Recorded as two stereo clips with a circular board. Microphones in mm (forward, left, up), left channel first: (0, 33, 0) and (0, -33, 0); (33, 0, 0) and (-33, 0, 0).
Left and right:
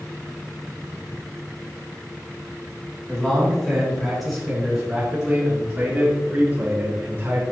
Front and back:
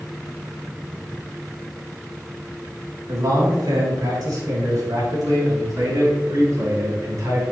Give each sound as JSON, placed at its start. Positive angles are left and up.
{"t": 3.1, "sound": "a man speaking", "azimuth_deg": 165, "distance_m": 4.0}